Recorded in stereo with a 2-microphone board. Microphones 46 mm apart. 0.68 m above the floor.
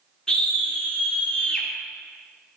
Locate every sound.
0.3 s a scream: 15° left (ahead or behind), 0.7 m